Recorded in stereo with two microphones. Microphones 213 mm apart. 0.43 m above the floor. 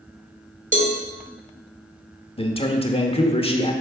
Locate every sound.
0.7 s a cowbell: 40° right (ahead or behind), 1.3 m
2.4 s a man speaking: 25° left (ahead or behind), 0.9 m